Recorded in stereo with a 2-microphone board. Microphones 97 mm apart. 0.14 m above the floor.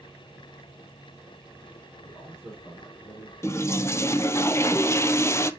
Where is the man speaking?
15° left (ahead or behind), 4.5 m.